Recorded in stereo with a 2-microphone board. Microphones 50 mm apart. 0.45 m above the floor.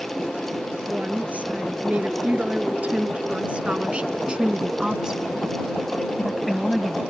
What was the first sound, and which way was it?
A woman speaking, 30° right (ahead or behind).